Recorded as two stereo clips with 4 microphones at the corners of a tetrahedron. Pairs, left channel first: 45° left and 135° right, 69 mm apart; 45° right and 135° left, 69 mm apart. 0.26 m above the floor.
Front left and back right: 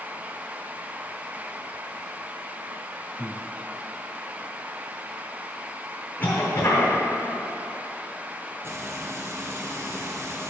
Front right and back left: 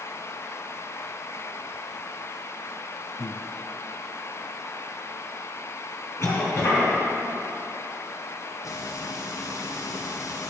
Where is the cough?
10° right, 2.5 m.